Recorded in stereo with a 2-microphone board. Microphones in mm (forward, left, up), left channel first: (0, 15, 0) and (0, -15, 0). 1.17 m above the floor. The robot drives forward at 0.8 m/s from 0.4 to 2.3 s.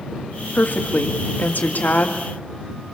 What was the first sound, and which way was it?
A woman speaking, 75° left (ahead or behind).